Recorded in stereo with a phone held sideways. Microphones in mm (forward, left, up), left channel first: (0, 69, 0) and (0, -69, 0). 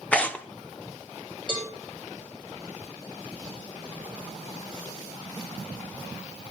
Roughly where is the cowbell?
Left.